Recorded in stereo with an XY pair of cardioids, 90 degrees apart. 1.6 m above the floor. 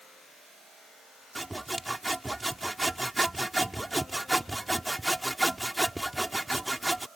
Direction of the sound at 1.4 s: 10° right.